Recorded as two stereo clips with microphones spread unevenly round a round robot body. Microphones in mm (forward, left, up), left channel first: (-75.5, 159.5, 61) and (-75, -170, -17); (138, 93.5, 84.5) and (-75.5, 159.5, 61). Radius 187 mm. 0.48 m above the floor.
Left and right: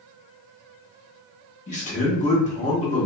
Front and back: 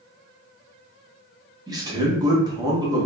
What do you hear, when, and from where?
1.7 s a man speaking: 155° left, 1.0 m